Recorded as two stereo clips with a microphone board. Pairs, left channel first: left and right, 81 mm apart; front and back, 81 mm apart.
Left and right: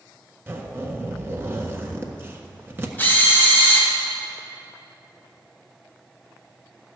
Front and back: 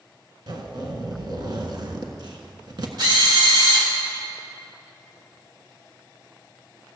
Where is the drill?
155° left, 3 m.